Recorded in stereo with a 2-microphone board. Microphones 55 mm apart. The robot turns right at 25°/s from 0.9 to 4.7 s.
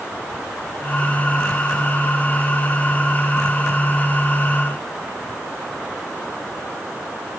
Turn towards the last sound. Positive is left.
No sound to turn to.